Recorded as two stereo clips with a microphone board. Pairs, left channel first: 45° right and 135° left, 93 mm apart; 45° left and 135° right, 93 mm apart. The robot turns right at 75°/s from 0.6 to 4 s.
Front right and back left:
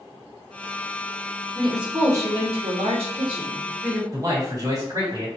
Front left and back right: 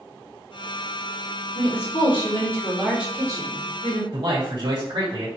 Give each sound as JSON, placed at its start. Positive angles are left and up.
{"t": 1.6, "sound": "a woman speaking", "azimuth_deg": 40, "distance_m": 1.7}
{"t": 4.1, "sound": "a man speaking", "azimuth_deg": -170, "distance_m": 2.0}